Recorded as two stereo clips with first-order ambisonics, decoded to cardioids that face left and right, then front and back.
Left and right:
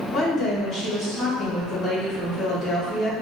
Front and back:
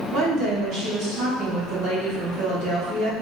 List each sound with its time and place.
0.1 s a woman speaking: 155° left, 1.8 m